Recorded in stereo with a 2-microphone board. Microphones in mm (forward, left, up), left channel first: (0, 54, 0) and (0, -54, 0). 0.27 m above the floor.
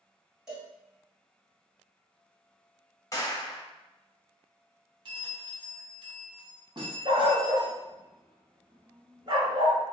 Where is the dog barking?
50° right (ahead or behind), 0.7 m.